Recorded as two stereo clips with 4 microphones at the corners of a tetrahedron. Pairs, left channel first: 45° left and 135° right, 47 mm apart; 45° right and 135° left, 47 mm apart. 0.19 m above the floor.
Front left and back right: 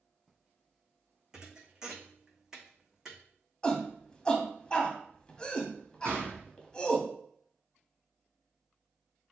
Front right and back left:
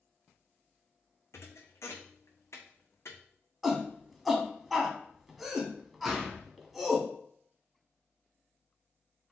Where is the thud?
60° right, 1.0 m.